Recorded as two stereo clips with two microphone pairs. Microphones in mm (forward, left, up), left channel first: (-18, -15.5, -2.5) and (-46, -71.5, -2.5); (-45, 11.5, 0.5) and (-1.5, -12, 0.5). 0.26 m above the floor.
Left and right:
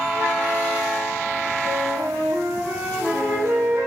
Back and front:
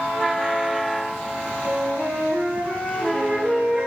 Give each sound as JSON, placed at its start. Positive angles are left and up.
{"t": 1.6, "sound": "a flute", "azimuth_deg": -100, "distance_m": 1.5}